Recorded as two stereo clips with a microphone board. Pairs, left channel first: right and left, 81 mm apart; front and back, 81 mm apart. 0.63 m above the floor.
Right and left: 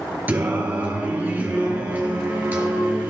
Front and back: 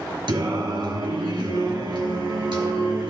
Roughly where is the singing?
Behind.